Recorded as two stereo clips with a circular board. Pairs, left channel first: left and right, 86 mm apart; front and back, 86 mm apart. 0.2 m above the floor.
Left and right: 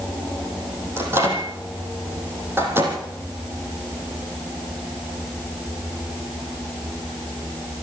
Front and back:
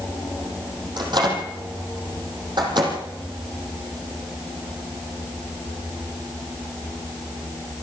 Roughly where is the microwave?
Behind right.